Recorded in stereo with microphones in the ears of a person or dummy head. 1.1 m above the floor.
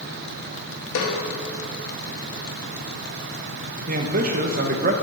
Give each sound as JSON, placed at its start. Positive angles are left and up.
{"t": 0.9, "sound": "a snare drum", "side_deg": 75, "distance_m": 1.7}
{"t": 3.9, "sound": "a man speaking", "side_deg": -40, "distance_m": 0.8}